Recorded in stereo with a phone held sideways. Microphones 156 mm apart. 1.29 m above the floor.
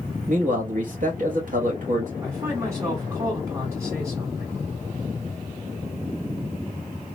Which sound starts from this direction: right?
A man speaking, at 0.3 s.